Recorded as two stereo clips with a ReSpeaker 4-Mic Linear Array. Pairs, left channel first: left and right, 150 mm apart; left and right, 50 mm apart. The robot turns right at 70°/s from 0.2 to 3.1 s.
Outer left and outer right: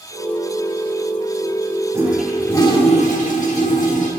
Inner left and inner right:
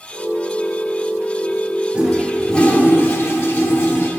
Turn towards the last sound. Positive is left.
turn(degrees=60)